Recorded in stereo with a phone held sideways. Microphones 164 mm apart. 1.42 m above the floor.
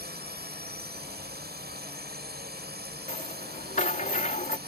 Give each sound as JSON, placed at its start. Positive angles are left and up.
{"t": 0.0, "sound": "a drone", "side_deg": -75}
{"t": 3.1, "sound": "a rattle", "side_deg": 50}